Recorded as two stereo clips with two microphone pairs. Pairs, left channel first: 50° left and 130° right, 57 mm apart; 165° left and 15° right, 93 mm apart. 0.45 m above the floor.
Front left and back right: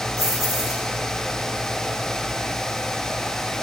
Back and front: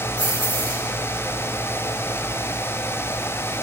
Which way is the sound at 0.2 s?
20° left.